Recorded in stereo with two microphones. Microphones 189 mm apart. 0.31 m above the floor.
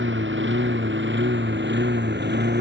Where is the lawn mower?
80° right; by 2.6 s 60° right (ahead or behind).